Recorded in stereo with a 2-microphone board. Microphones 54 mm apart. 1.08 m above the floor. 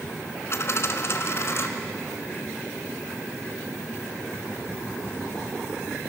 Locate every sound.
0.5 s a dropped coin: 50° left (ahead or behind), 1.5 m